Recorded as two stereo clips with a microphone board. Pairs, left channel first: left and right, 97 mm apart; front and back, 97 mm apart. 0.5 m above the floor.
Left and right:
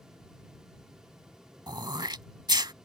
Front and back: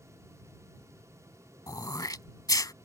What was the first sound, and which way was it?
Throat clearing, 50° right.